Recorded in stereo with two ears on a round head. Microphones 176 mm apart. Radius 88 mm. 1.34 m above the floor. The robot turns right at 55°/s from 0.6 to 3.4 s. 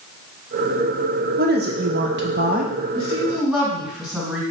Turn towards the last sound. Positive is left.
turn(degrees=0)  # may be behind; listen again after turning